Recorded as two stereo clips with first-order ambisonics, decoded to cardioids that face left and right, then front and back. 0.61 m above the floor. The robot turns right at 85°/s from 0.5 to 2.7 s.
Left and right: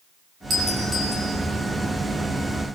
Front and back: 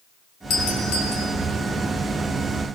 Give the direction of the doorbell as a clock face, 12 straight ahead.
1 o'clock.